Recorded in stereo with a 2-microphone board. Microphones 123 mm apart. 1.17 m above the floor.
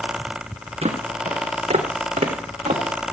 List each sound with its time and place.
0.8 s footsteps: 55° right (ahead or behind), 3 m; by 3.1 s 70° right (ahead or behind), 3.5 m